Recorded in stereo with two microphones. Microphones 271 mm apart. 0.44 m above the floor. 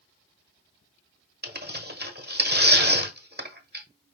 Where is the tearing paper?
35° right (ahead or behind), 1.1 m.